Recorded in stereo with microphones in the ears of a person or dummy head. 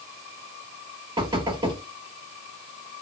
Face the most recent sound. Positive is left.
turn(degrees=-25)  # may be behind; listen again after turning